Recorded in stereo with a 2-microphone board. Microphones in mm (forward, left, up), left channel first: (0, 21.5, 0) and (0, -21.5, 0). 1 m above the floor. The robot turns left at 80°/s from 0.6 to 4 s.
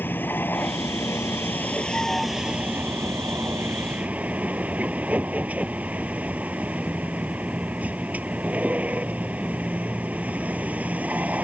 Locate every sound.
0.0 s a vehicle: 130° left; by 11.4 s 140° right